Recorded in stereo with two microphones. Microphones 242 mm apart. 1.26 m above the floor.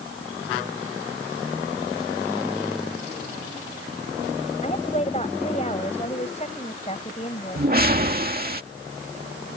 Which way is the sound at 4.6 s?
30° left (ahead or behind).